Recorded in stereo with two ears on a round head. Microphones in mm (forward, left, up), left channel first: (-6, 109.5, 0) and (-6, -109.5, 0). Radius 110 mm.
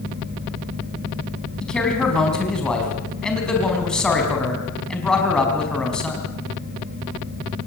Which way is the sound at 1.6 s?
5° left (ahead or behind).